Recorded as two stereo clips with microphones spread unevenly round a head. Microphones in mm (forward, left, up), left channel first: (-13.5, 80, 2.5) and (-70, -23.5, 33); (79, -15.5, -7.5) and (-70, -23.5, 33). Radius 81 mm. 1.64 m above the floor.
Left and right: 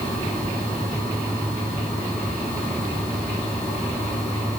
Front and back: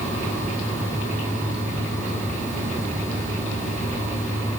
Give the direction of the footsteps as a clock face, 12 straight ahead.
No footsteps in this recording.